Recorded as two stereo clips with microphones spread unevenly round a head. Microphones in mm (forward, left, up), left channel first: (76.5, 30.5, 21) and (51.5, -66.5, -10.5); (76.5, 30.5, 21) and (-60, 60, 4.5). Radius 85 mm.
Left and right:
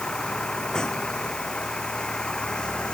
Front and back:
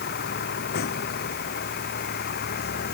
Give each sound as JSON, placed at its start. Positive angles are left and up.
{"t": 0.0, "sound": "a vehicle", "azimuth_deg": -5}